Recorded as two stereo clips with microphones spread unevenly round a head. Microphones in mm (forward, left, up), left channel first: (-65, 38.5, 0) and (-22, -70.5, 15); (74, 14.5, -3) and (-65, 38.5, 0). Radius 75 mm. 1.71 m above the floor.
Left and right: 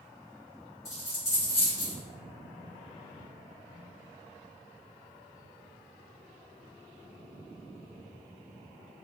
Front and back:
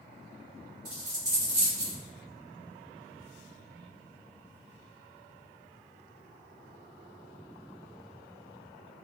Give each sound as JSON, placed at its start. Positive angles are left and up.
{"t": 0.8, "sound": "a dropped coin", "azimuth_deg": 160, "distance_m": 1.5}